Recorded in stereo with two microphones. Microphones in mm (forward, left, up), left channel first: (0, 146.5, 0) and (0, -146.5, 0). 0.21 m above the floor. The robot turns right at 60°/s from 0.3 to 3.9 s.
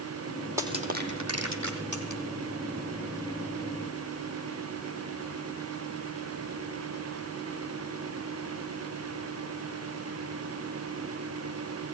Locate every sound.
0.6 s crushing: 10° right (ahead or behind), 3.5 m; by 2.2 s 70° right (ahead or behind), 3.5 m